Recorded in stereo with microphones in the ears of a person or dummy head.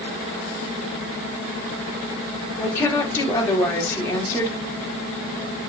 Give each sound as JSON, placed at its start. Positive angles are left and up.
{"t": 2.6, "sound": "a woman speaking", "side_deg": 15, "distance_m": 3.0}